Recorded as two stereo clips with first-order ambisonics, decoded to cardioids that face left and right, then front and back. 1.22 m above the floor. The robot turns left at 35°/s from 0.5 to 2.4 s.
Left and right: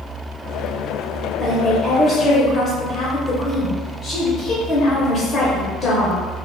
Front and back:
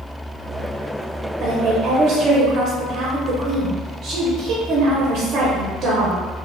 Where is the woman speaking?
175° right, 0.6 m; by 6.2 s 150° left, 0.6 m.